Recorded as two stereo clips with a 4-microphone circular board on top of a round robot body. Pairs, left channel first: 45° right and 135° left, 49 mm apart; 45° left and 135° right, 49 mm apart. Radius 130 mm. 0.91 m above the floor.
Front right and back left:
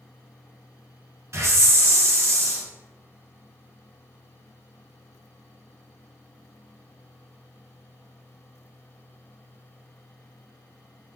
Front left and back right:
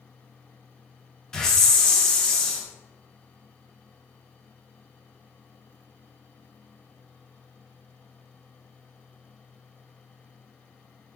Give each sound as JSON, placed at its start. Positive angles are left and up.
{"t": 1.3, "sound": "a hiss", "azimuth_deg": 120, "distance_m": 0.7}